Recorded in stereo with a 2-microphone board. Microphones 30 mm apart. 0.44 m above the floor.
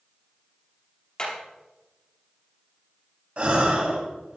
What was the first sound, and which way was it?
Hammering, 35° left (ahead or behind).